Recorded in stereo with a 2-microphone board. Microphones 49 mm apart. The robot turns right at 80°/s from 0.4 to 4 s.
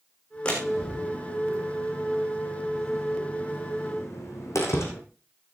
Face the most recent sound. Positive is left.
turn(degrees=80)